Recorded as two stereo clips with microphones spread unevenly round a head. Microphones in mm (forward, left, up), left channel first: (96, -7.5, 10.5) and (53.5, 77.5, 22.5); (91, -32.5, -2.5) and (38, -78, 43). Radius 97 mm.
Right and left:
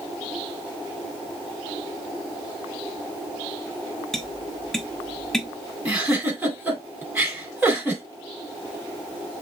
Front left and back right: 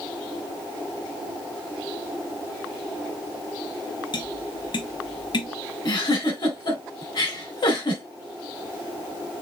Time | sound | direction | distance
4.1 | tapping | 25° left | 1.1 m
5.8 | a giggle | 40° left | 3.5 m